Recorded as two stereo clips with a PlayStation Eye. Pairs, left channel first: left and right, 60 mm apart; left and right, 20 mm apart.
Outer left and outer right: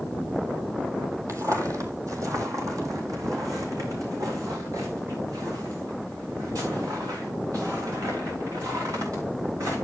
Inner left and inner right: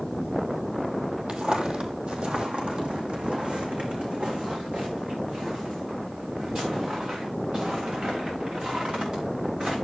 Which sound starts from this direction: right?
Footsteps, at 1.3 s.